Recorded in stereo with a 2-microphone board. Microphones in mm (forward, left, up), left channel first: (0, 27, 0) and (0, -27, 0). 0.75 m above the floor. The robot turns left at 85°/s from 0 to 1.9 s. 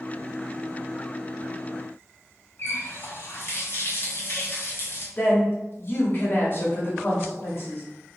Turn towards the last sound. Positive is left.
turn(degrees=45)  # may be behind; listen again after turning